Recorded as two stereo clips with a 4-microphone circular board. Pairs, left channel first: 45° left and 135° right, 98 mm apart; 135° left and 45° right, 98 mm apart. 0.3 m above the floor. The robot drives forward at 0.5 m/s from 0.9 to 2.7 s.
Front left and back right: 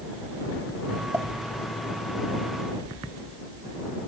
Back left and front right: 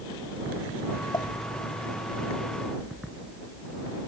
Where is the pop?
165° left.